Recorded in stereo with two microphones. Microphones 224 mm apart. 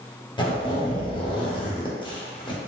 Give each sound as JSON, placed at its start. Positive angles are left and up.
{"t": 0.4, "sound": "a zipper", "side_deg": 20, "distance_m": 0.6}